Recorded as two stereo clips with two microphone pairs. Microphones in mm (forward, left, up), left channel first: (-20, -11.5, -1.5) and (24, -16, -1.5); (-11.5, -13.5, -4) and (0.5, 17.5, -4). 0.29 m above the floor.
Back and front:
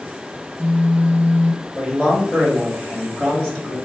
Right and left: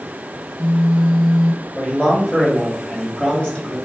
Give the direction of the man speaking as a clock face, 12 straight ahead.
4 o'clock.